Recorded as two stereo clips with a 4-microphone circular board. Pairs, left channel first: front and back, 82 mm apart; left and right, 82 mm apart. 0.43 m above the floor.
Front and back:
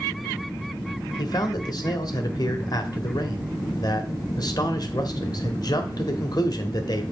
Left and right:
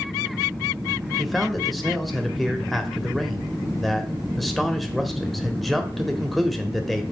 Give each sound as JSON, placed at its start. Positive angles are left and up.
{"t": 1.2, "sound": "a man speaking", "azimuth_deg": 0, "distance_m": 1.3}